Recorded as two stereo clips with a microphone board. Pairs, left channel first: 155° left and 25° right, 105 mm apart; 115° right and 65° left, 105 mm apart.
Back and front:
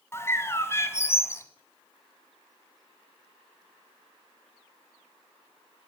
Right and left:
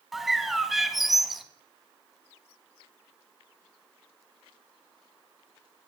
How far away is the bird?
About 0.7 m.